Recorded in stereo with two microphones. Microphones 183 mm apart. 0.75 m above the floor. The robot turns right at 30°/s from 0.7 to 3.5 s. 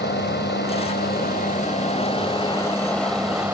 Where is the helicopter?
65° left (ahead or behind); by 3.5 s 10° right (ahead or behind).